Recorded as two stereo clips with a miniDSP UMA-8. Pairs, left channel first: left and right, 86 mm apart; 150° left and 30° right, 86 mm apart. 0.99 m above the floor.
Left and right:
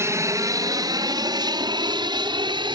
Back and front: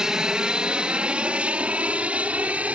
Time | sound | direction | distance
0.0 | an aircraft | 105° right | ?